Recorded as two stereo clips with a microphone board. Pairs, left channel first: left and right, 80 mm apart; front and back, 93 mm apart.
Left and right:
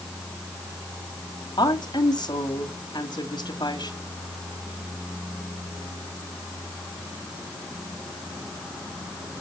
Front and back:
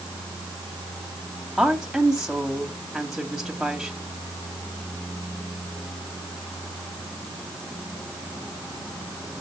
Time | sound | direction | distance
1.6 | a woman speaking | 95° left | 2.0 m